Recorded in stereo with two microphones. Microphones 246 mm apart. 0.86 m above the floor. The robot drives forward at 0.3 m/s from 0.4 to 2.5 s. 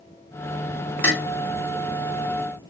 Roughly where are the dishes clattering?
Left.